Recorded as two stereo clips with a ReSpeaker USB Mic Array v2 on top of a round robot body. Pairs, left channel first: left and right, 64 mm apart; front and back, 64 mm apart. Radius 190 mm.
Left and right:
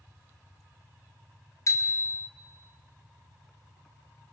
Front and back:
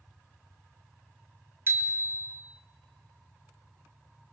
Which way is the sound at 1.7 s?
125° left.